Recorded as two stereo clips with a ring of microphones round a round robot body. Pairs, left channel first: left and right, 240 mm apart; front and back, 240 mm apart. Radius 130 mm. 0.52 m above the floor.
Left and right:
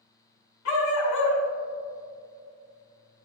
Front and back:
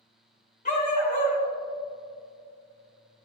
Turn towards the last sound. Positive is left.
turn(degrees=60)